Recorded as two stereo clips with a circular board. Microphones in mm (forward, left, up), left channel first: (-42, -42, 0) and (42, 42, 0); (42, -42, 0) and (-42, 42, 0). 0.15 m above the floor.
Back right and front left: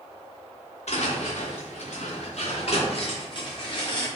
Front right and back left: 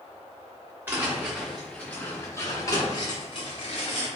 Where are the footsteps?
150° right, 1.1 m; by 4.1 s 85° right, 1.7 m.